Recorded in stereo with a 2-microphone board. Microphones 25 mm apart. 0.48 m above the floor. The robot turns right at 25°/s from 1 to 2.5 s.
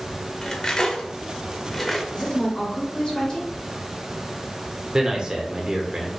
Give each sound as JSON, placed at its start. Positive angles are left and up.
{"t": 0.4, "sound": "cutlery clinking", "side_deg": 25, "distance_m": 0.7}
{"t": 2.1, "sound": "a woman speaking", "side_deg": 25, "distance_m": 1.9}
{"t": 4.9, "sound": "a man speaking", "side_deg": -35, "distance_m": 1.0}